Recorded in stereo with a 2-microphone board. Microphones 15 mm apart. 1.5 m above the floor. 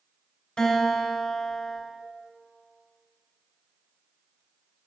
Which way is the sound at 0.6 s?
65° left (ahead or behind).